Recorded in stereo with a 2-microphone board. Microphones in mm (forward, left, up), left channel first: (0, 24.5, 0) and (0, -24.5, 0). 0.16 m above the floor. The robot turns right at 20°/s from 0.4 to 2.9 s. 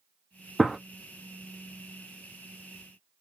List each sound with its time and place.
0.6 s a gunshot: centre (ahead or behind), 0.5 m